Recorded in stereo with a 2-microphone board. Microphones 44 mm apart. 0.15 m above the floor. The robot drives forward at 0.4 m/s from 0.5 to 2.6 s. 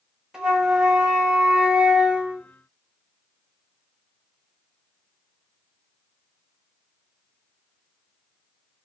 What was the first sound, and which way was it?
A flute, 15° right (ahead or behind).